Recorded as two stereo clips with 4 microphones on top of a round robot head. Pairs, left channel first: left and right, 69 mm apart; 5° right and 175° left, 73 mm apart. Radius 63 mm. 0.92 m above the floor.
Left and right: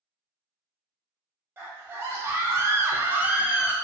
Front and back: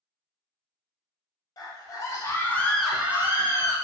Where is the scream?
30° right, 1.0 m; by 3.7 s 165° right, 0.7 m.